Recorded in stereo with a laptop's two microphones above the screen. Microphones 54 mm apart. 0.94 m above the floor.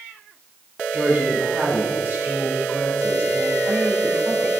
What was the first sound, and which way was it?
A woman speaking, 35° right (ahead or behind).